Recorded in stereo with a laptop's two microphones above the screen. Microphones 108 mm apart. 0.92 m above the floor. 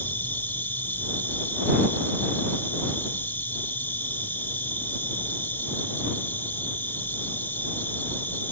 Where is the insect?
20° left (ahead or behind).